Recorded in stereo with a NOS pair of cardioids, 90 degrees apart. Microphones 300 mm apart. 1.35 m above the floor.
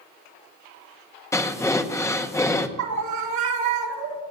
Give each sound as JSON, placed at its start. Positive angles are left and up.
{"t": 1.3, "sound": "breathing", "azimuth_deg": 10, "distance_m": 1.4}
{"t": 2.8, "sound": "a scream", "azimuth_deg": -70, "distance_m": 3.5}